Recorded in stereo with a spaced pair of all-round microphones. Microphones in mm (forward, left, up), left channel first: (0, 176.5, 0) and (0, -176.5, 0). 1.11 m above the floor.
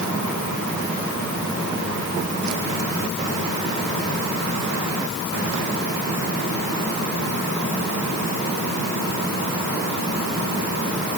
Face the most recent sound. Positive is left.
No sound to turn to.